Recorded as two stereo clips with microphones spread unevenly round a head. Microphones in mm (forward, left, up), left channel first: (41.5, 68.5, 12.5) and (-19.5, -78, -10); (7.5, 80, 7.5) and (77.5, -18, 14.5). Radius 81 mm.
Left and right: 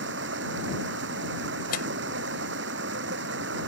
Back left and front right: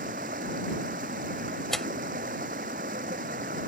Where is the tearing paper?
35° left.